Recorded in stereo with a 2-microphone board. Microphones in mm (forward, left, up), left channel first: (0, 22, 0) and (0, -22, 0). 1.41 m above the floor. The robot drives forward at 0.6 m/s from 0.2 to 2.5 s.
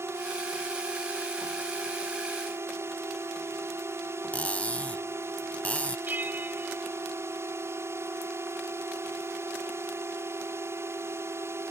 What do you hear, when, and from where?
0.0 s a drone: 70° right (ahead or behind)
4.3 s cutlery clinking: 30° left (ahead or behind)
6.1 s a bell: 45° right (ahead or behind)